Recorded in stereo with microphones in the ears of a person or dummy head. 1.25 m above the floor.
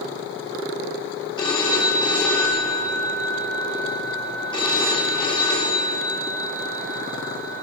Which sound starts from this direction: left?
A phone ringing, at 1.4 s.